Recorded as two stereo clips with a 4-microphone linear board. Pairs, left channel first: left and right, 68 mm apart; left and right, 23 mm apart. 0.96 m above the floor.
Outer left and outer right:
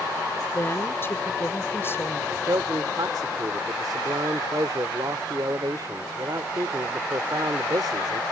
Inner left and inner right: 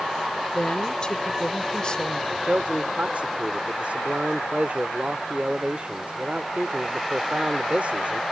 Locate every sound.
0.5 s a woman speaking: 35° left (ahead or behind)
2.3 s a man speaking: 65° right (ahead or behind)